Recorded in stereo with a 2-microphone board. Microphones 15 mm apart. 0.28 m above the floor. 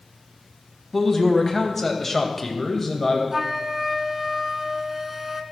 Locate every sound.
0.9 s a man speaking: 10° left (ahead or behind), 1.9 m; by 3.2 s 5° left (ahead or behind), 1.2 m
3.3 s a flute: 20° right (ahead or behind), 0.8 m